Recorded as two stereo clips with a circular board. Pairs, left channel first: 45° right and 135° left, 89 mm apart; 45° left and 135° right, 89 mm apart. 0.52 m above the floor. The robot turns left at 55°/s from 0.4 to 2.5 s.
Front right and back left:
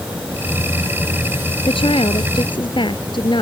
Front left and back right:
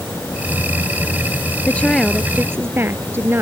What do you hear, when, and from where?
1.7 s a woman speaking: 25° right; by 3.4 s 70° right